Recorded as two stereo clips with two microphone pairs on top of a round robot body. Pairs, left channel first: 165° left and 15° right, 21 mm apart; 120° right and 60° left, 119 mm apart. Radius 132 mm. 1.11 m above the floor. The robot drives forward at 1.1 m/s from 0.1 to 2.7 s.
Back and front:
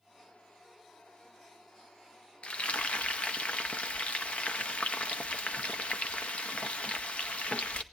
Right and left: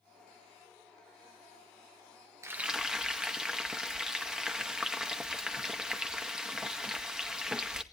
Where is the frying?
130° left, 0.6 m; by 7.8 s 145° left, 0.8 m.